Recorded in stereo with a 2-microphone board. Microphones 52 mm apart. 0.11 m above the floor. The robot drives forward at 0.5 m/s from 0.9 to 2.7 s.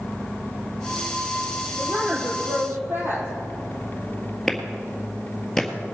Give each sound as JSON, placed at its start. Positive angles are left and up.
{"t": 1.8, "sound": "a woman speaking", "side_deg": -45, "distance_m": 3.5}
{"t": 4.5, "sound": "a clap", "side_deg": 10, "distance_m": 1.7}